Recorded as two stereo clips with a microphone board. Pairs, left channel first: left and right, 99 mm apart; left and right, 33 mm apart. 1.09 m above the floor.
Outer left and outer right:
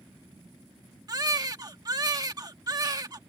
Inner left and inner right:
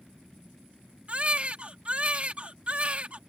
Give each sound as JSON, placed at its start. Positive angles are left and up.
{"t": 1.1, "sound": "a baby crying", "side_deg": -40}